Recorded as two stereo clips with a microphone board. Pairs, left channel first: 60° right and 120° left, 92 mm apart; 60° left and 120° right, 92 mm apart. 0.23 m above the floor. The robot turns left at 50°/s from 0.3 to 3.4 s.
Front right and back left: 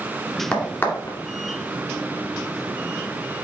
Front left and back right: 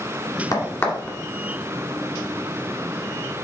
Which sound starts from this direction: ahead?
A crack, at 0.5 s.